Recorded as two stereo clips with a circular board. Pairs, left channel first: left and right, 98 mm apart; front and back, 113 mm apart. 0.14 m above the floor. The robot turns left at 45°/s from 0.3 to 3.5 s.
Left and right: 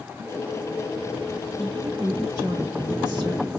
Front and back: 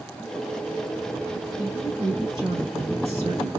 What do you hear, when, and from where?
1.6 s a woman speaking: 105° right, 3 m; by 3.5 s 170° left, 3 m